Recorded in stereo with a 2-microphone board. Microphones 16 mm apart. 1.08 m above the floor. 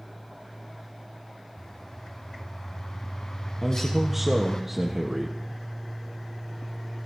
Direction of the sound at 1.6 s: 40° left (ahead or behind).